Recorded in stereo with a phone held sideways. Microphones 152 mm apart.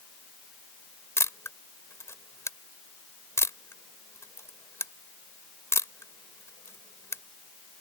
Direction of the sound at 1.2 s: 15° left (ahead or behind).